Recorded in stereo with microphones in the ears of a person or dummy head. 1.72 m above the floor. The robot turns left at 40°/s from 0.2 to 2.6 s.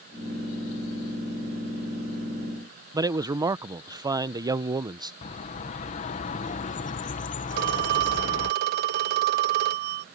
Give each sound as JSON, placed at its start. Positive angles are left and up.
{"t": 2.9, "sound": "a man speaking", "side_deg": -20}
{"t": 5.2, "sound": "a bird", "side_deg": 35}
{"t": 7.5, "sound": "a phone ringing", "side_deg": -50}